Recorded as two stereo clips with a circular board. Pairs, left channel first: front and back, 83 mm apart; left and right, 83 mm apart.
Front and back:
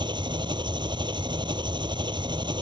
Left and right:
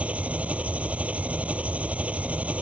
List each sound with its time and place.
0.0 s an engine running: 165° right